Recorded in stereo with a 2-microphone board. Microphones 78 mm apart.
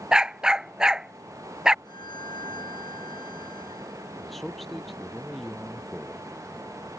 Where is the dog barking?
10° right (ahead or behind).